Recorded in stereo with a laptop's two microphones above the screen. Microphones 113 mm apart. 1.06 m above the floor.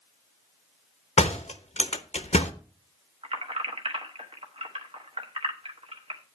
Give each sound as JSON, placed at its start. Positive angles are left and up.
{"t": 1.2, "sound": "a door slam", "side_deg": 80, "distance_m": 0.9}
{"t": 3.2, "sound": "keys jangling", "side_deg": -55, "distance_m": 1.0}